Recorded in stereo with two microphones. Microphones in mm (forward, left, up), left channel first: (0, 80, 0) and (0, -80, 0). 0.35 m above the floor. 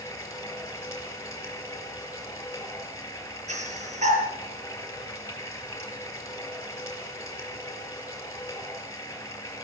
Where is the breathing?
50° right (ahead or behind), 5.5 m.